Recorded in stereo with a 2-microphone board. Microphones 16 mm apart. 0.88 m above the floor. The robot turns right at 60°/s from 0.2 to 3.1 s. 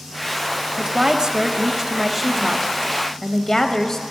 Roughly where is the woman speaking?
Right.